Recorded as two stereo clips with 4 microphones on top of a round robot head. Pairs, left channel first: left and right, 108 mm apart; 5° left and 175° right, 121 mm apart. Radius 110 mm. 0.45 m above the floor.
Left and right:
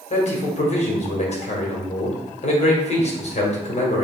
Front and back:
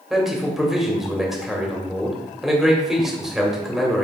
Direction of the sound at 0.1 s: 100° left.